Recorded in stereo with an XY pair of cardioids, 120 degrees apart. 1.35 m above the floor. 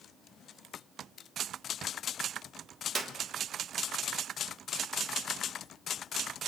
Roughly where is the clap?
Ahead right.